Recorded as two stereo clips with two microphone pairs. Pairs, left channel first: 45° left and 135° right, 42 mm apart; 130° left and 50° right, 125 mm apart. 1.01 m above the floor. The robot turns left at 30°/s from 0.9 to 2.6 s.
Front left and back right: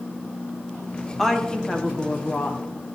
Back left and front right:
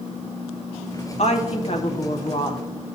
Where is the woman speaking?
130° left, 0.9 m; by 2.6 s 85° left, 0.9 m.